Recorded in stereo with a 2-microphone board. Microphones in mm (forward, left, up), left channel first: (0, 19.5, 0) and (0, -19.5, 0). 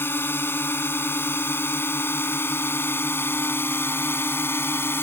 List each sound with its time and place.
0.0 s a drone: 70° left (ahead or behind); by 5.0 s 75° left (ahead or behind)